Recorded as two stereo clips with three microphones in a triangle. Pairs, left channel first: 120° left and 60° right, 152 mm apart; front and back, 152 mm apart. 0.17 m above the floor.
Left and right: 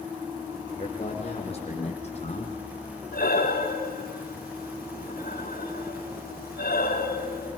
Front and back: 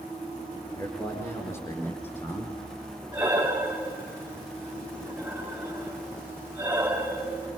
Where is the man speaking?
70° left, 7.5 m; by 2.5 s 75° left, 6.5 m.